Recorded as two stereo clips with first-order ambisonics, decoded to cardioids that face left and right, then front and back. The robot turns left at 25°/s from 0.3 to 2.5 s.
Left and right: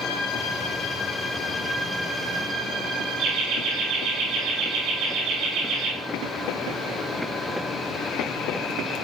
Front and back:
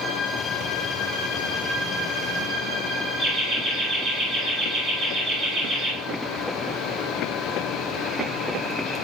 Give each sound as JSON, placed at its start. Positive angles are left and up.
{"t": 3.2, "sound": "laughter", "azimuth_deg": -115, "distance_m": 4.5}